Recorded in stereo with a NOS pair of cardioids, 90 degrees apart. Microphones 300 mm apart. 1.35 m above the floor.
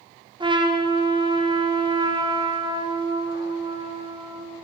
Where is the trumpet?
15° right, 1.4 m.